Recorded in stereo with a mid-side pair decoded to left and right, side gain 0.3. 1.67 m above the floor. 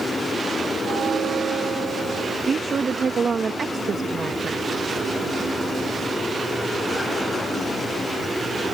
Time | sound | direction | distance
0.8 | a bell | 70° right | ?
2.5 | a woman speaking | 55° right | ?